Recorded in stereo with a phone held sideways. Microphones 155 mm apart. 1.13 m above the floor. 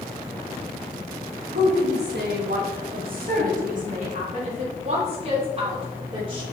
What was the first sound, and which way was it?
A woman speaking, 80° right.